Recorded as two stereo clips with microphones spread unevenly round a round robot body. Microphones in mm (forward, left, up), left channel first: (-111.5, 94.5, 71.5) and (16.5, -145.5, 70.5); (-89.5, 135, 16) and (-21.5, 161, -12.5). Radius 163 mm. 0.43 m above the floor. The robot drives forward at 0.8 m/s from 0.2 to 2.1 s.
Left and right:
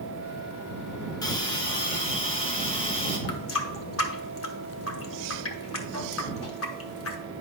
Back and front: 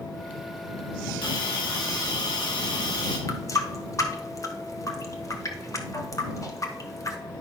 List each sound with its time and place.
1.2 s a hiss: 165° right, 1.4 m; by 3.2 s 170° right, 2 m
3.3 s a running tap: 145° left, 1.2 m